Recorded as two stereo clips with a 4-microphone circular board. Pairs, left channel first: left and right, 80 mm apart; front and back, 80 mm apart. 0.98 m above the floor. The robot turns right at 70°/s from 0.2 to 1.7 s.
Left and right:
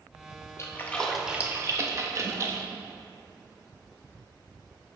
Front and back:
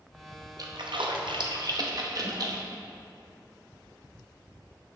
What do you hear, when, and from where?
0.6 s a splash: 140° left, 0.7 m; by 2.6 s 140° right, 0.7 m